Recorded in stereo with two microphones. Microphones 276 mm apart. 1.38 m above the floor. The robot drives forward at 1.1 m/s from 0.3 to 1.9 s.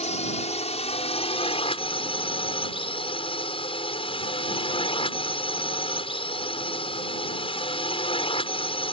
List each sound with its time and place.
0.0 s a drone: 25° left (ahead or behind); by 8.9 s 20° left (ahead or behind)